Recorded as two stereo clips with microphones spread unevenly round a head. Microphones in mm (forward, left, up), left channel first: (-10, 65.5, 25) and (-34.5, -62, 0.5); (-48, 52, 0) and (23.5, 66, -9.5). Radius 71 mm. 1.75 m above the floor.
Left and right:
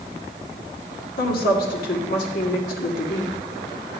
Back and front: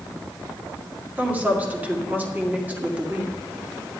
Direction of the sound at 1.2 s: 80° left.